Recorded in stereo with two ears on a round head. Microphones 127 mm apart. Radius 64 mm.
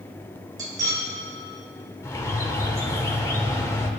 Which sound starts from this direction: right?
Cutlery clinking, at 0.6 s.